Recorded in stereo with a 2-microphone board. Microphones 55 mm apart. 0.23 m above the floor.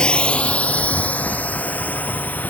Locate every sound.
0.0 s a drone: 15° left (ahead or behind); by 2.5 s 30° left (ahead or behind)